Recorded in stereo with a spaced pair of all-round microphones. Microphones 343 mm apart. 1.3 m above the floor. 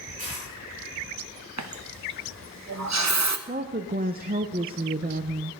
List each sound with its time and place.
0.2 s a dropped coin: 20° right (ahead or behind), 6.5 m
1.6 s a running tap: 50° right (ahead or behind), 0.7 m
3.5 s a woman speaking: 25° right (ahead or behind), 0.5 m